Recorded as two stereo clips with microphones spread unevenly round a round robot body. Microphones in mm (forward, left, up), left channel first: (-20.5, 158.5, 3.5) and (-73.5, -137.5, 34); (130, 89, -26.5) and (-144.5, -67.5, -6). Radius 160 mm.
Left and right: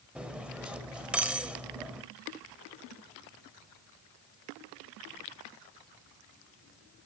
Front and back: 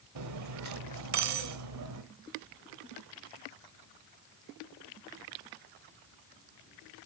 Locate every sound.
0.1 s cutlery clinking: 170° left, 1.4 m